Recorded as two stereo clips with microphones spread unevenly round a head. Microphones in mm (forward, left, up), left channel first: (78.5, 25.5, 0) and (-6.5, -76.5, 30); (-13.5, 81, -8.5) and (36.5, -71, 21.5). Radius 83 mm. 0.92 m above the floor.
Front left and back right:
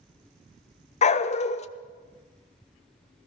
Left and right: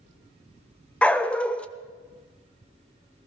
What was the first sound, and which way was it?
A dog barking, 15° left.